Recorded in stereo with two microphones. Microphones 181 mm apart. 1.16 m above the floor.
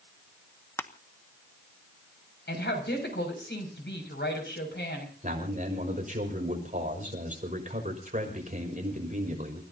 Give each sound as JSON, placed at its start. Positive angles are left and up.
{"t": 0.8, "sound": "crushing", "side_deg": 15, "distance_m": 0.9}
{"t": 2.5, "sound": "a woman speaking", "side_deg": 80, "distance_m": 6.5}
{"t": 5.2, "sound": "a man speaking", "side_deg": -45, "distance_m": 5.5}